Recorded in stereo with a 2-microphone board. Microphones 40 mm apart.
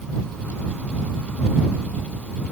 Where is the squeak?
No squeak in this recording.